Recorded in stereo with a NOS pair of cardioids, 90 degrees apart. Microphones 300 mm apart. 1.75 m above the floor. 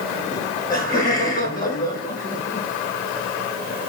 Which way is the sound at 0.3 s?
10° left.